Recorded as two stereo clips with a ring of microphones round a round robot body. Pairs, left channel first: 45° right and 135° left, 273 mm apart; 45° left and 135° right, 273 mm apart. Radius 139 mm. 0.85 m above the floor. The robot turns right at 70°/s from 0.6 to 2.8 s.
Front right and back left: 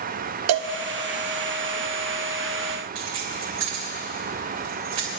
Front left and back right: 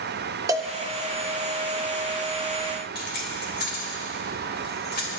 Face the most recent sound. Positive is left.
turn(degrees=100)